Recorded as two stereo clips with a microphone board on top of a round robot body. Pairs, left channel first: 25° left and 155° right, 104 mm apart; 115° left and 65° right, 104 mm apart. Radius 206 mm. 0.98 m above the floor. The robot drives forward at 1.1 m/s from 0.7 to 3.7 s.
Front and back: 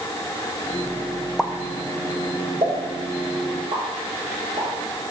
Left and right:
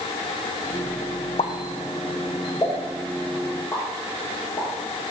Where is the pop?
110° left, 0.5 m; by 4.7 s 170° left, 2.5 m.